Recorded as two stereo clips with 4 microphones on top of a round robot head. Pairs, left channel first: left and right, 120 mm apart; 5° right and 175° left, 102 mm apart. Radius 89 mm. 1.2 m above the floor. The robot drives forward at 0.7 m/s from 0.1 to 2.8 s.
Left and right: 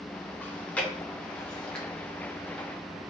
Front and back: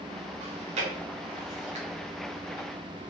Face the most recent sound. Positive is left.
turn(degrees=175)